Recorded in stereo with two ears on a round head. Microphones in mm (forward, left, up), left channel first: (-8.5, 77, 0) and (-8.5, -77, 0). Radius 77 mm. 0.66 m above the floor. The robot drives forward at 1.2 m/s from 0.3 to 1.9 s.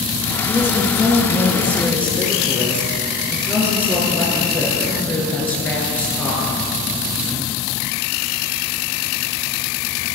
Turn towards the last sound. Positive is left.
turn(degrees=10)  # may be behind; listen again after turning